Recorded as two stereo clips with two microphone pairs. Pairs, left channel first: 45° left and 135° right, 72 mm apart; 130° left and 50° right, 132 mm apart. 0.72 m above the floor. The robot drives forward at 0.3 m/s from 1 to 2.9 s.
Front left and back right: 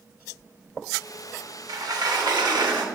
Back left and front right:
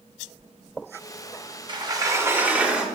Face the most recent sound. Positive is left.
turn(degrees=-135)